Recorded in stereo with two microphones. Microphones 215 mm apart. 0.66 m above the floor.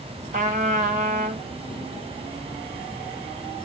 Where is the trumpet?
40° right (ahead or behind), 0.8 m.